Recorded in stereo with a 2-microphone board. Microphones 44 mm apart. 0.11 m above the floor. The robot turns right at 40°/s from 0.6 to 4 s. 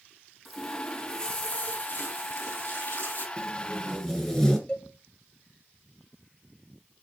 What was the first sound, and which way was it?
A running tap, 5° left.